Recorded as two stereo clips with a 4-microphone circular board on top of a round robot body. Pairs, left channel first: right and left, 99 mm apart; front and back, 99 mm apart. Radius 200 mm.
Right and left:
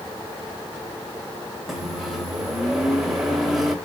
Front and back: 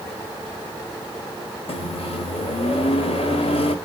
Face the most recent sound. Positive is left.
turn(degrees=0)